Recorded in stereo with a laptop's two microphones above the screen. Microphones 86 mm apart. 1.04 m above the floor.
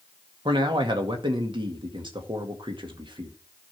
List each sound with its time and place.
0.5 s a man speaking: 70° right (ahead or behind), 2.0 m